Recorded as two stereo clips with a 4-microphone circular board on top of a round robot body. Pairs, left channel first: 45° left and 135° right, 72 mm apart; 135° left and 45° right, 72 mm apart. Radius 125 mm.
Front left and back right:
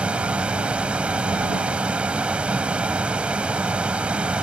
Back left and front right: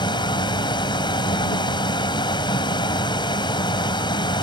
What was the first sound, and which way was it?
A vehicle, 150° left.